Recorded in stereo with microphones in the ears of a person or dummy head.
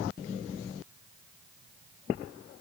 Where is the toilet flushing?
No toilet flushing in this recording.